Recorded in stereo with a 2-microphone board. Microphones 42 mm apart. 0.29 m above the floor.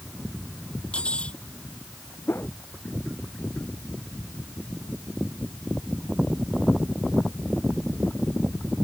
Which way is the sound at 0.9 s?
25° left (ahead or behind).